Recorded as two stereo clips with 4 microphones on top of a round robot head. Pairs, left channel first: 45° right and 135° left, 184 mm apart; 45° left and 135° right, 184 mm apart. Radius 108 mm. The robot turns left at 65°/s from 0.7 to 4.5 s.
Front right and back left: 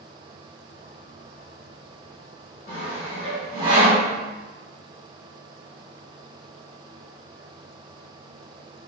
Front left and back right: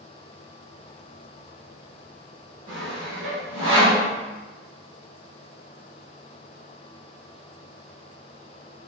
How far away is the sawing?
About 1.6 m.